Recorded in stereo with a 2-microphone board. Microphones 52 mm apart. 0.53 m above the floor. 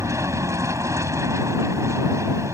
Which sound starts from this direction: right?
An aircraft, at 0.0 s.